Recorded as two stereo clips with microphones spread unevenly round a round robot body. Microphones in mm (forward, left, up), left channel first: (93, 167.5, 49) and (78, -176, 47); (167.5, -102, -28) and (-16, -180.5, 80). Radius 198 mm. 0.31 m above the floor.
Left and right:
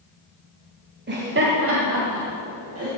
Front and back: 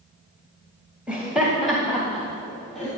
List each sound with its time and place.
1.1 s laughter: 45° right, 1.7 m; by 2.9 s 50° right, 3 m